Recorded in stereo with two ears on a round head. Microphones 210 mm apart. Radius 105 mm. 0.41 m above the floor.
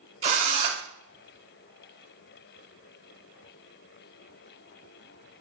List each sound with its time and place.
0.2 s a drill: 30° right (ahead or behind), 0.6 m